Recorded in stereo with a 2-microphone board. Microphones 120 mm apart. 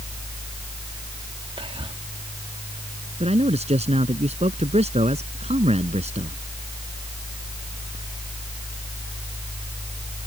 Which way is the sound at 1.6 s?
50° right (ahead or behind).